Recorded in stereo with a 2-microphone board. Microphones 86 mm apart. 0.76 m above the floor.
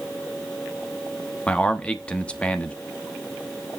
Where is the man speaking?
15° left (ahead or behind), 1.0 m.